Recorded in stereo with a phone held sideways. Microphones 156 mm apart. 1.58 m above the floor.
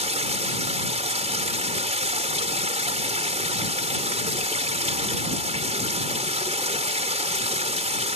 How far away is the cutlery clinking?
I don't hear cutlery clinking.